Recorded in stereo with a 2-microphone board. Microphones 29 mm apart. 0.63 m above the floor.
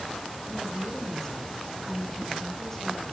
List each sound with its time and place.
0.5 s a woman speaking: 15° left (ahead or behind), 5.5 m